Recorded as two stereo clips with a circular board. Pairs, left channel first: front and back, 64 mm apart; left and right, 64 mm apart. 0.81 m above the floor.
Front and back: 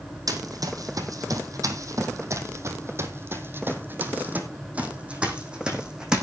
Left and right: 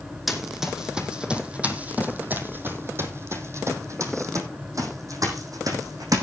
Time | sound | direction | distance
0.3 | running footsteps | 175° right | 2.5 m